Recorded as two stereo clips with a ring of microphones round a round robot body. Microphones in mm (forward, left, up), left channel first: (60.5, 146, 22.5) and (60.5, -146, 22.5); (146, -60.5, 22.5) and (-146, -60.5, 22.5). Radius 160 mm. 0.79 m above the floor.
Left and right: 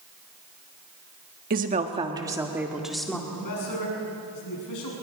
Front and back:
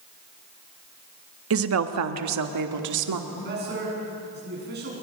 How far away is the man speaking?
About 7 m.